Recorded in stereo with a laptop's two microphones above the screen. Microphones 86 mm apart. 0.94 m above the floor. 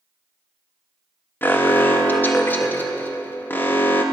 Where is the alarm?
25° left (ahead or behind), 1.0 m.